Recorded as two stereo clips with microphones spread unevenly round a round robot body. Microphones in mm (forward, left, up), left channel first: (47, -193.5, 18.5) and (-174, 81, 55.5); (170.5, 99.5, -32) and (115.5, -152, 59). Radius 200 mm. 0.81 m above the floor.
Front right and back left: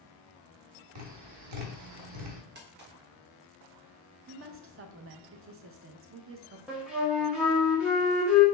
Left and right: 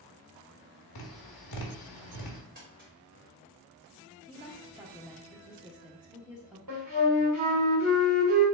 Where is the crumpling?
175° right, 1.1 m.